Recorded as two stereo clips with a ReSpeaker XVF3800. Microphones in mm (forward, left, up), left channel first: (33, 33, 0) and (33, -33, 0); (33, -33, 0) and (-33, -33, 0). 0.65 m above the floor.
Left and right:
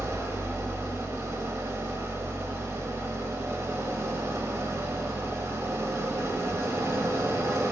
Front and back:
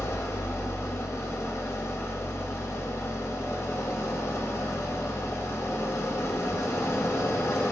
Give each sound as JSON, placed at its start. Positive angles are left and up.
{"t": 0.0, "sound": "an engine running", "azimuth_deg": -45, "distance_m": 0.9}